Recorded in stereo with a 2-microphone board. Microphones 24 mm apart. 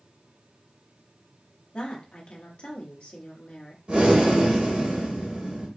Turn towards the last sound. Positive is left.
turn(degrees=-50)  # may be behind; listen again after turning